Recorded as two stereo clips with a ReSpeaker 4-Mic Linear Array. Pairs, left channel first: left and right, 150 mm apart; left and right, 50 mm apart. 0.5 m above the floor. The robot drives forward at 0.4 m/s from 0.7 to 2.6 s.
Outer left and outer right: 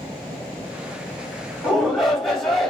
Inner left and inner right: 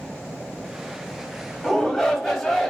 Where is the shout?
Centre (ahead or behind), 1.0 m.